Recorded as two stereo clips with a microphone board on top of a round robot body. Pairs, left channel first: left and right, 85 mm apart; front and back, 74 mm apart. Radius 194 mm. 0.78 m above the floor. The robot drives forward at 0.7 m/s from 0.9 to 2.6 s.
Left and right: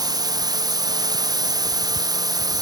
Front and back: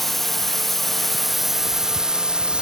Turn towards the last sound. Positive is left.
turn(degrees=-105)